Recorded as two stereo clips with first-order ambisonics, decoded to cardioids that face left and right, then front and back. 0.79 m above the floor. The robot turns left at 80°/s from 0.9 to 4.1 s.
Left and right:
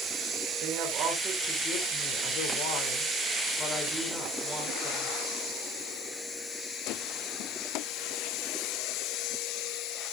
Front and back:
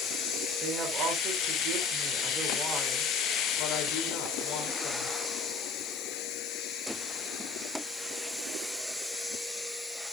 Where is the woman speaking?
125° right, 3 m; by 5.2 s 20° right, 3 m.